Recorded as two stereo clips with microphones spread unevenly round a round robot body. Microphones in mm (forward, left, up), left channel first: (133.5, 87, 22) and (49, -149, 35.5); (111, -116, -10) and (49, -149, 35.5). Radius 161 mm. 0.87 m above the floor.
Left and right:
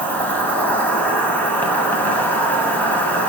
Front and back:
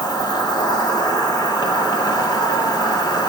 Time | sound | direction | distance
0.0 | an insect | 15° right | 1.6 m